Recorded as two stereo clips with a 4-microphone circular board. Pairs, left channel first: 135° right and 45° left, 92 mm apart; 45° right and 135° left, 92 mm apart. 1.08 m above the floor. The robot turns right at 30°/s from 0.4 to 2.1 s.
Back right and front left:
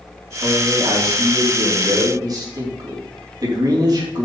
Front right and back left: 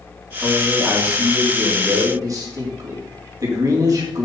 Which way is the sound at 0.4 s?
35° left.